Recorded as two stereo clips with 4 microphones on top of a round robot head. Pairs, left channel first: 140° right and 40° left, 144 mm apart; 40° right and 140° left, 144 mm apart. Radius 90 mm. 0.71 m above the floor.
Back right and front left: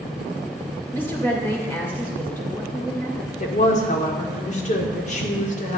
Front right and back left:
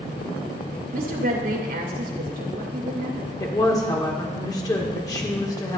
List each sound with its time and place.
0.9 s a woman speaking: 145° left, 2.5 m
3.4 s a woman speaking: 105° right, 1.8 m